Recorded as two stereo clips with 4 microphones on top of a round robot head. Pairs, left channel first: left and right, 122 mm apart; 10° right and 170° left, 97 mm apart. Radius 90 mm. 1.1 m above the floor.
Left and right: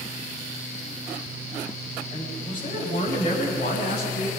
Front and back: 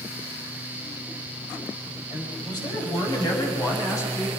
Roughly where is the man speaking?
Ahead left.